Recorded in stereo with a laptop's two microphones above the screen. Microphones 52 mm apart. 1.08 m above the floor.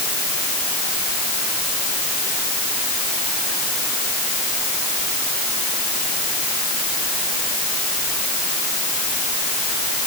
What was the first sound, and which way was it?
Only background noise.